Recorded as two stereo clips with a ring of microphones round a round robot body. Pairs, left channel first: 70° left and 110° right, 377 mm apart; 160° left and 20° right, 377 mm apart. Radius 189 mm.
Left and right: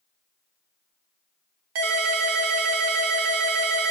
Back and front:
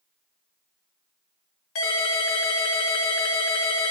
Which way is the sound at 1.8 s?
145° right.